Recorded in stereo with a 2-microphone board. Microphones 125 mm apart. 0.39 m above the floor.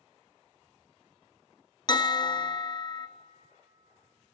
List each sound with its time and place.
1.9 s a bell: 35° left (ahead or behind), 0.6 m